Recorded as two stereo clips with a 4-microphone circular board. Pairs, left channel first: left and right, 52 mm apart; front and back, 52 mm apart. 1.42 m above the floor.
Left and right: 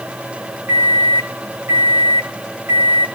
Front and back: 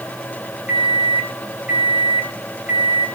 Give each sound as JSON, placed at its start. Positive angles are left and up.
{"t": 0.7, "sound": "a microwave", "azimuth_deg": -120, "distance_m": 3.0}